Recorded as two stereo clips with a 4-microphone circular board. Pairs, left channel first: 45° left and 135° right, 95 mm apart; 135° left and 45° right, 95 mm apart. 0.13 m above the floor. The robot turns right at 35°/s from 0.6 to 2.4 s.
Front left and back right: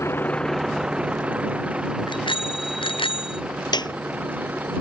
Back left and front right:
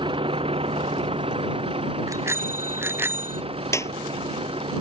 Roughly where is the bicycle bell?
Ahead.